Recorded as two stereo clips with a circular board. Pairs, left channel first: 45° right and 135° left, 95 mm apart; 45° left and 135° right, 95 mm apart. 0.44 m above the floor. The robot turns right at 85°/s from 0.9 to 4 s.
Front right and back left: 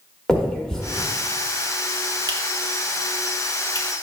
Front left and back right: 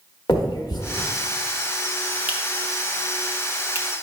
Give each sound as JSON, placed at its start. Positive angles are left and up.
{"t": 0.3, "sound": "a finger snap", "azimuth_deg": 35, "distance_m": 0.9}